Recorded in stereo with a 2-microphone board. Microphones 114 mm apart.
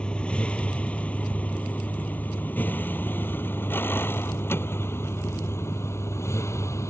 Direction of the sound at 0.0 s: 10° left (ahead or behind).